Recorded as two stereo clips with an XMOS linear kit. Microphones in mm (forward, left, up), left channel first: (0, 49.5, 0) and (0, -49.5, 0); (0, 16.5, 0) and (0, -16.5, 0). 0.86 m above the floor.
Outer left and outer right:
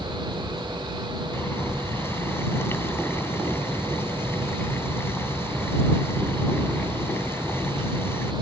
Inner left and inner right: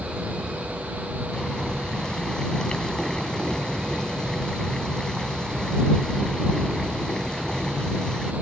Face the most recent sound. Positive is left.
turn(degrees=25)  # may be behind; listen again after turning